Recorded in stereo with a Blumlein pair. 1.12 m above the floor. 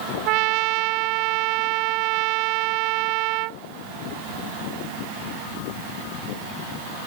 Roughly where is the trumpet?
Ahead right.